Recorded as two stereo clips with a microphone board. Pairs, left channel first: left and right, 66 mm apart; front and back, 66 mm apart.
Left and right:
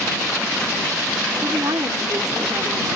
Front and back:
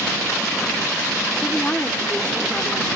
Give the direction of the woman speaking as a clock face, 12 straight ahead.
2 o'clock.